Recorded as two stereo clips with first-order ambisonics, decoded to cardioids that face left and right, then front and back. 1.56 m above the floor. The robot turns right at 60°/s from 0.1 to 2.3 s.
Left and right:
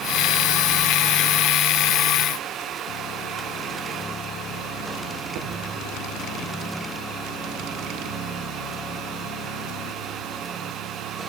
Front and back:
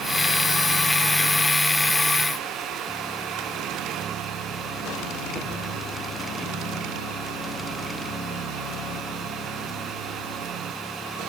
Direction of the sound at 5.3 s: 70° right.